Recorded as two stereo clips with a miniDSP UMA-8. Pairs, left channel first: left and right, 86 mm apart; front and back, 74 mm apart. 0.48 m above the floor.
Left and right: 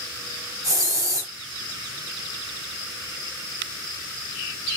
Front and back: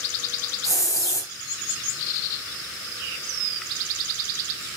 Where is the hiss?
45° right, 3 m.